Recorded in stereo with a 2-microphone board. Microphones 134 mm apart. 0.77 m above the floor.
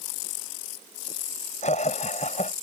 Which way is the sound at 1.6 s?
60° left (ahead or behind).